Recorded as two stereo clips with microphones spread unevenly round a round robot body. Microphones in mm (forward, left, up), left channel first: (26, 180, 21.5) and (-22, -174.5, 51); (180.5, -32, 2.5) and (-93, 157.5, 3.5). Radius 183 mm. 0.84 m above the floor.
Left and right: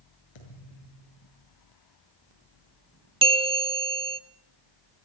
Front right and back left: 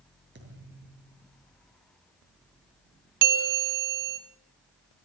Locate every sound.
0.3 s a thud: 90° left, 7 m
3.2 s a bell: 175° right, 0.9 m